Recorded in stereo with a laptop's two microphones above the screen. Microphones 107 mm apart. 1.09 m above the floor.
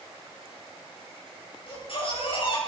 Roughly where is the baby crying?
Left.